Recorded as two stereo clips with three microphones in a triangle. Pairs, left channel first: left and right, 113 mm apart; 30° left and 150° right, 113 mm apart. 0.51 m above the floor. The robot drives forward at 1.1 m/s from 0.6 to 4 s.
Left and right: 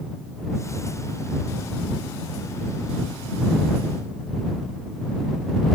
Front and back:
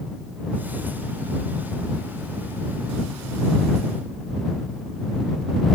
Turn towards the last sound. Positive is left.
No sound to turn to.